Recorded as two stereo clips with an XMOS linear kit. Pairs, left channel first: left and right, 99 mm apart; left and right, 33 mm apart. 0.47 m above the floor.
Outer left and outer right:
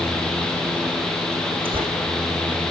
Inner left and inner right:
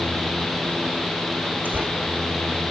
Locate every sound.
1.6 s tearing paper: 60° right (ahead or behind), 7.5 m